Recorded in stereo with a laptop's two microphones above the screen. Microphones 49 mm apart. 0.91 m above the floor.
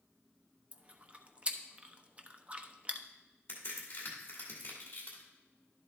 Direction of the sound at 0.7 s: 25° right (ahead or behind).